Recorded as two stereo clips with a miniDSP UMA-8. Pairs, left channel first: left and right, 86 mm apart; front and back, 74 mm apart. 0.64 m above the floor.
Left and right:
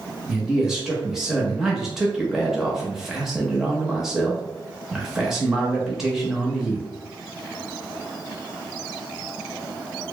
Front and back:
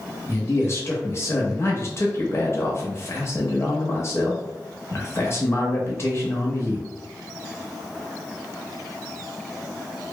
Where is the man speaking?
10° right, 0.8 m.